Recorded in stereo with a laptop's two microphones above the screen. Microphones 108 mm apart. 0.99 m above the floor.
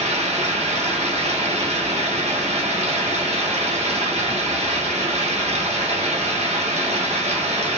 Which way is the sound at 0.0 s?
85° right.